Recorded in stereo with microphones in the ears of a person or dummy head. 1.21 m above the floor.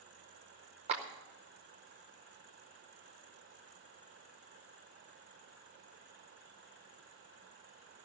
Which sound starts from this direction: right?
A clap, at 0.9 s.